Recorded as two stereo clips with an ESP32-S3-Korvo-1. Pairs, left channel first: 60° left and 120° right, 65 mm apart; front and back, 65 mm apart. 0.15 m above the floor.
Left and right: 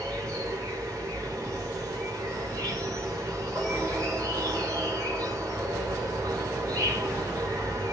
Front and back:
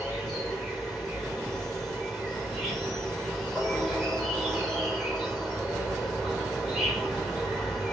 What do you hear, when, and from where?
0.0 s an insect: 85° right, 2.5 m